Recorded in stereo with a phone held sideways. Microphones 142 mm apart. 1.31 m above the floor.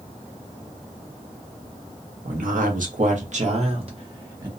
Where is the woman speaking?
75° right (ahead or behind), 1.0 m; by 4.5 s 30° right (ahead or behind), 1.2 m.